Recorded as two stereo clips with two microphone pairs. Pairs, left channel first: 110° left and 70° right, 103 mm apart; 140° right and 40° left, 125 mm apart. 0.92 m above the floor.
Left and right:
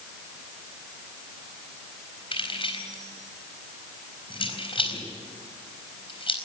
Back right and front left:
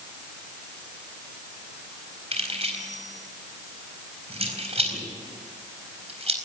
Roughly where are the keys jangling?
Left.